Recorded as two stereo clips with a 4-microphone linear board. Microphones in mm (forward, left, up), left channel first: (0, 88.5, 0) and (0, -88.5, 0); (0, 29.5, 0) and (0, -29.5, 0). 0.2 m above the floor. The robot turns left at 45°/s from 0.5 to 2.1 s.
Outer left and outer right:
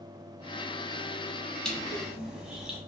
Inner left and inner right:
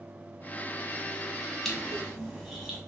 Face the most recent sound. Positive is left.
turn(degrees=-5)  # may be behind; listen again after turning